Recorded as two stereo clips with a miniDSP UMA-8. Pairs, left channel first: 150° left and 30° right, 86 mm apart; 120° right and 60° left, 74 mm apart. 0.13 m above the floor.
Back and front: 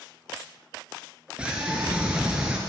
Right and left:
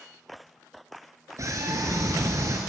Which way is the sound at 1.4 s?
45° left.